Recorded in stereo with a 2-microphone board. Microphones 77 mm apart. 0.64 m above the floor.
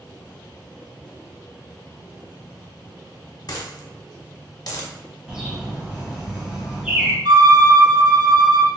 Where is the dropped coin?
50° left (ahead or behind), 0.7 m.